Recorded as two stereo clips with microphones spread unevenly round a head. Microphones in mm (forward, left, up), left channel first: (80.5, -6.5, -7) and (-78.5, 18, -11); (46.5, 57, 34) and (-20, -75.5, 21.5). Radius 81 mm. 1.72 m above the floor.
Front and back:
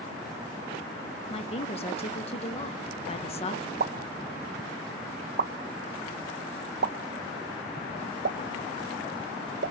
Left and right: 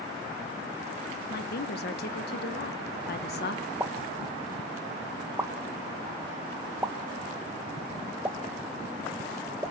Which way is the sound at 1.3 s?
45° left.